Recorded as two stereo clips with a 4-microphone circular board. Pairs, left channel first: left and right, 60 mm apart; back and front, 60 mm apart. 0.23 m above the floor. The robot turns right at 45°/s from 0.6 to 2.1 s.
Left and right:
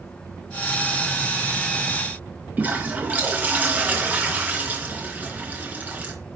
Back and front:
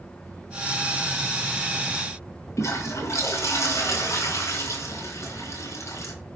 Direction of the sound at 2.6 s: 150° right.